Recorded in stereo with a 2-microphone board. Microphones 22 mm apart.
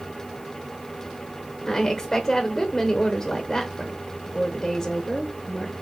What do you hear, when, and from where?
1.7 s a woman speaking: 10° left (ahead or behind), 0.9 m